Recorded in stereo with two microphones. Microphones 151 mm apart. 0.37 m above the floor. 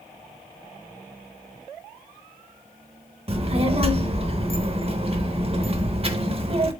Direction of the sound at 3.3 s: 40° right (ahead or behind).